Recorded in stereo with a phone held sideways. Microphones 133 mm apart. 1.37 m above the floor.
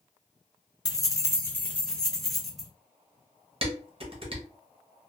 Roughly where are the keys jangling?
Left.